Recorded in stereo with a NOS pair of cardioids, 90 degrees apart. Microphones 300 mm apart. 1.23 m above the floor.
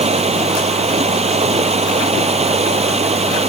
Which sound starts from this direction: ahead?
Running water, at 0.0 s.